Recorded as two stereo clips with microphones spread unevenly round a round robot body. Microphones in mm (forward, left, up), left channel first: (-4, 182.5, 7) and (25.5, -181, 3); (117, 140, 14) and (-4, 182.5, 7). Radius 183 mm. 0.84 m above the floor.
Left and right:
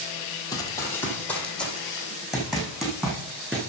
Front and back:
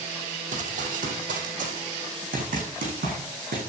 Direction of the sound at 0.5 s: 175° left.